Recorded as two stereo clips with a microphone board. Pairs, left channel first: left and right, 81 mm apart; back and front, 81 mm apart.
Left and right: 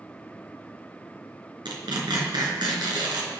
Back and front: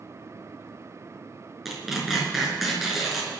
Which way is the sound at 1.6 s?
90° right.